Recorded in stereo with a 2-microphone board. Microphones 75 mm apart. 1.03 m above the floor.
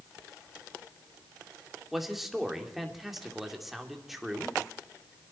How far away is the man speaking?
About 2.5 m.